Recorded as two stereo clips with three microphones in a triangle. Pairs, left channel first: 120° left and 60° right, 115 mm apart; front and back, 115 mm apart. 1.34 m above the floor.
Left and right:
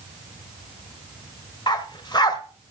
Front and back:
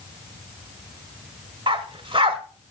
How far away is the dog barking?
About 1.6 m.